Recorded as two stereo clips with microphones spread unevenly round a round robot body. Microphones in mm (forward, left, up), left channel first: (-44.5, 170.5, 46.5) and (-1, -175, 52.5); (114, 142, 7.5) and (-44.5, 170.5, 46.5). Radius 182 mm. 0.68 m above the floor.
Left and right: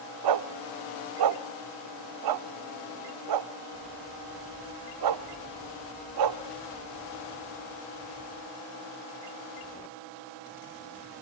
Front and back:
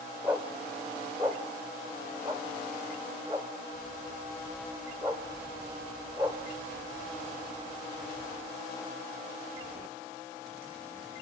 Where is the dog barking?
110° right, 0.7 m.